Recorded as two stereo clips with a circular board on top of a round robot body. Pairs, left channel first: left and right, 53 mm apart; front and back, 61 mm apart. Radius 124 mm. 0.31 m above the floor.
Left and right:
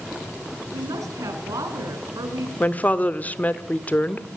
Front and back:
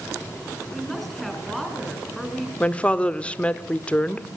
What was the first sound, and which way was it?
A woman speaking, 85° right.